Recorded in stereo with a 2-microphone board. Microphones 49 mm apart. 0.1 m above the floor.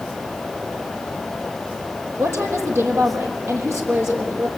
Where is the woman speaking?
65° right (ahead or behind), 3.5 m.